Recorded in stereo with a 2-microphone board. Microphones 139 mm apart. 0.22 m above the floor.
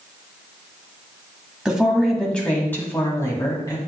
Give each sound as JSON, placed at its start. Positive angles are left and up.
{"t": 1.6, "sound": "a woman speaking", "side_deg": -5, "distance_m": 1.6}